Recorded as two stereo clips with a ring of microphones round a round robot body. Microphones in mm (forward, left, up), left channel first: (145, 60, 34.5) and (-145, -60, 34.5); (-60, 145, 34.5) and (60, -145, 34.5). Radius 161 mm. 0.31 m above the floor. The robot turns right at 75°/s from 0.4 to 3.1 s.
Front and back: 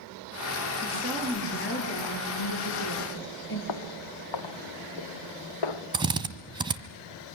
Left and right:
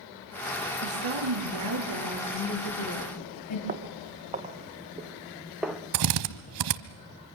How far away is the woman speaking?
About 5.5 m.